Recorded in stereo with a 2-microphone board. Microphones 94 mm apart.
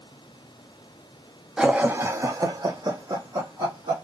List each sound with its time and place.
1.6 s laughter: 5° right (ahead or behind), 0.5 m; by 4.0 s 50° right (ahead or behind), 1.3 m